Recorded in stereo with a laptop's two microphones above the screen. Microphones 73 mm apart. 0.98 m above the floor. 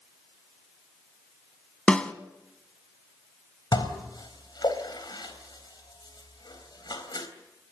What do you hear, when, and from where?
1.9 s a snare drum: 15° left (ahead or behind), 1.4 m
3.7 s dishes clattering: 85° left, 3.5 m